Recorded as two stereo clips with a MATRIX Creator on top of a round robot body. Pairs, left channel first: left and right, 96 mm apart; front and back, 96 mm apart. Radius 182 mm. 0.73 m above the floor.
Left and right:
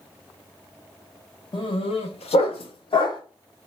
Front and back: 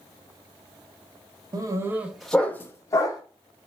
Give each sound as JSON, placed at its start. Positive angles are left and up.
{"t": 1.5, "sound": "a dog barking", "azimuth_deg": 130, "distance_m": 0.7}